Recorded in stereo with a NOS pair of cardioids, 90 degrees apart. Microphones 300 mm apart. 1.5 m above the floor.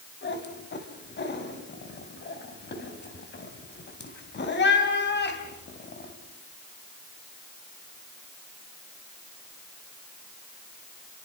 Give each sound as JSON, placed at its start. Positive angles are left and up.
{"t": 0.2, "sound": "a cat meowing", "azimuth_deg": 35, "distance_m": 3.5}